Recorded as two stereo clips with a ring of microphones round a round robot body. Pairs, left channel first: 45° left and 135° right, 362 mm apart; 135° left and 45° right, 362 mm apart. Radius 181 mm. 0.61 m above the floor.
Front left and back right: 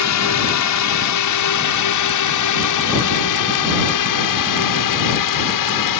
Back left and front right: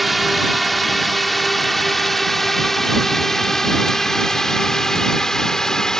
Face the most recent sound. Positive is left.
turn(degrees=45)